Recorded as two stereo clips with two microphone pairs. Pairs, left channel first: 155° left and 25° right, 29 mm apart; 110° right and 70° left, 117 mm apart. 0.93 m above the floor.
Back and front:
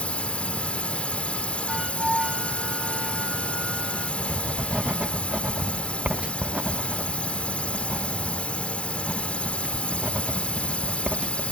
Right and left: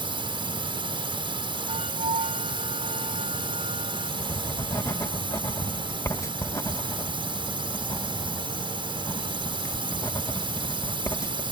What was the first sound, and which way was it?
A drone, 110° left.